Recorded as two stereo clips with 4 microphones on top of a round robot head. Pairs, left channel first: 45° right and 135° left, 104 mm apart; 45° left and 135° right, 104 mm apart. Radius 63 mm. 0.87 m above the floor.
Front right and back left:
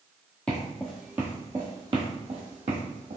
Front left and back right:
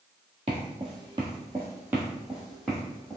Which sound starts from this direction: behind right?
Footsteps, at 0.5 s.